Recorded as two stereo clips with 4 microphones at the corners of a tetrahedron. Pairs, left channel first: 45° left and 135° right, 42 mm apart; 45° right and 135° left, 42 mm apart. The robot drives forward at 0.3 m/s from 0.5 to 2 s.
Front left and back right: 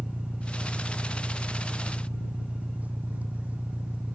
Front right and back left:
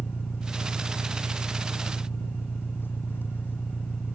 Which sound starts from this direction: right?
An engine running, at 0.0 s.